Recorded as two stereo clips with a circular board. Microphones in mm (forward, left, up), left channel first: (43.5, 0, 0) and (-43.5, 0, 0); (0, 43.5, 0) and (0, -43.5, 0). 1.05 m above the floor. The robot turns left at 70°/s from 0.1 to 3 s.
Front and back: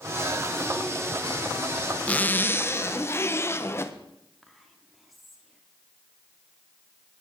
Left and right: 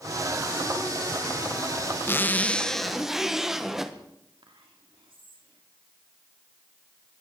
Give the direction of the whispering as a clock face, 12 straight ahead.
3 o'clock.